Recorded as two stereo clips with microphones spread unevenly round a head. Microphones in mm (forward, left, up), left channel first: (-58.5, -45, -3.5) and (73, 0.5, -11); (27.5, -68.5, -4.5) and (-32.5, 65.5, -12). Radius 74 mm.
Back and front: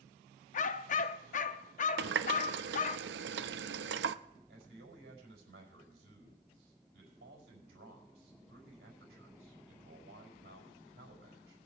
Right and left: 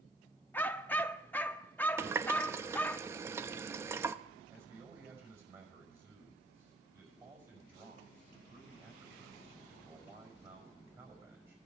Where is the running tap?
40° left, 0.5 m.